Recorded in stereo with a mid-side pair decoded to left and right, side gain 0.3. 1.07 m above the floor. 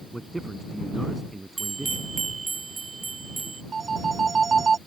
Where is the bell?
50° right.